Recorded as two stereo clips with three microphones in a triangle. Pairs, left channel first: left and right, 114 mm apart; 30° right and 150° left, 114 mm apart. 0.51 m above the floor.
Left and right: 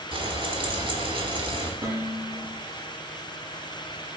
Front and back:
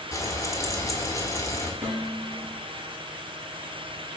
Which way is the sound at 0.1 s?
80° right.